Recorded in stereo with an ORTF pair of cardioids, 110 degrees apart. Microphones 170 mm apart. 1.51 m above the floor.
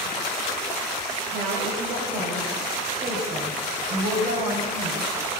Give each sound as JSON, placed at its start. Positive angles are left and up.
{"t": 1.3, "sound": "a woman speaking", "azimuth_deg": -70, "distance_m": 6.5}